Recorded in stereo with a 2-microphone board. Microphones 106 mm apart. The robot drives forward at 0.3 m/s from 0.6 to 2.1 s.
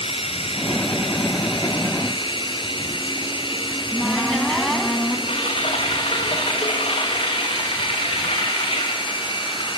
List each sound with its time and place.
0.0 s running water: 65° left (ahead or behind), 1.6 m; by 9.8 s 50° left (ahead or behind), 1.8 m
3.7 s a cupboard door: 5° left (ahead or behind), 2 m
5.3 s typing on a keyboard: 60° left (ahead or behind), 6.5 m